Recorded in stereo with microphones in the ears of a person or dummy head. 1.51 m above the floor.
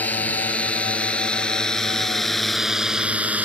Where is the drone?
10° left (ahead or behind); by 3.5 s 5° right (ahead or behind).